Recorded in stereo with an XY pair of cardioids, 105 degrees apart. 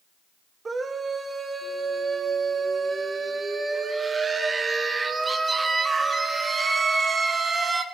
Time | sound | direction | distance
0.7 | a scream | 30° right | 1.6 m